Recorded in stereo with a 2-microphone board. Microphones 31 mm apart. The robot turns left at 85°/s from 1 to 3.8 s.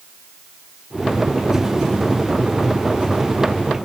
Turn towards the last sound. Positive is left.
No sound to turn to.